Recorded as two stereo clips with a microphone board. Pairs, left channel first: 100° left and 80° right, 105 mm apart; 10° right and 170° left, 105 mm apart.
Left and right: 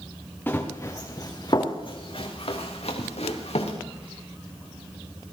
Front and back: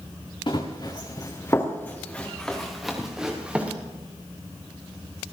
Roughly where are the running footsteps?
Ahead left.